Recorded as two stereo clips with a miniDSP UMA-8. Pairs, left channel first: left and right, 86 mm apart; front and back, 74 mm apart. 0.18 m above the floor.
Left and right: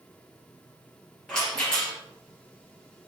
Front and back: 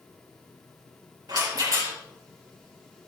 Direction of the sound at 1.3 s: 170° left.